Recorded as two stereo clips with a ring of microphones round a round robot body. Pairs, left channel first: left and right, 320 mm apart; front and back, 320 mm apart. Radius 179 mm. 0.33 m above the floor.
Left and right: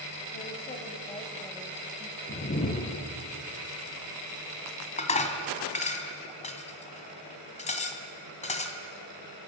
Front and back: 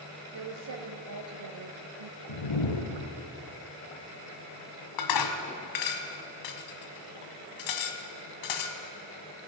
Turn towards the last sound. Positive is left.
turn(degrees=20)